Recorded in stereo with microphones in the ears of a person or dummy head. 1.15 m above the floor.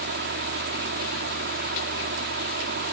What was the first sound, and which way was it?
A fan, 50° right (ahead or behind).